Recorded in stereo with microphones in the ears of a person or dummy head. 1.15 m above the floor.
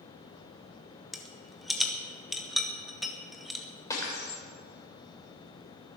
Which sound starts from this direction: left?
Breaking glass, at 3.9 s.